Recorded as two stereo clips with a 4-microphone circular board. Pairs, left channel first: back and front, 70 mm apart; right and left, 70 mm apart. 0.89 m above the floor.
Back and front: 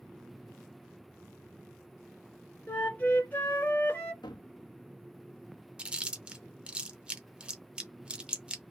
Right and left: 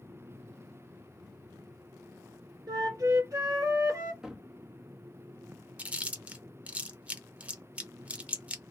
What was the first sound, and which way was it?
A flute, 115° left.